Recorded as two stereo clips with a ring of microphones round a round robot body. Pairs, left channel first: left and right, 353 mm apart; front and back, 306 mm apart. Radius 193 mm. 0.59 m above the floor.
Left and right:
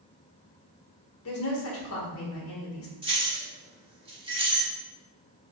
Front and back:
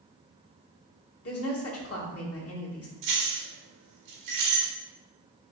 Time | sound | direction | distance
1.2 | a woman speaking | 40° left | 1.3 m
3.0 | keys jangling | 165° right | 1.2 m